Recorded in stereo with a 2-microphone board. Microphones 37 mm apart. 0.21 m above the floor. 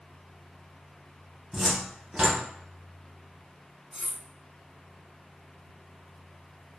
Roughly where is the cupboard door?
Centre.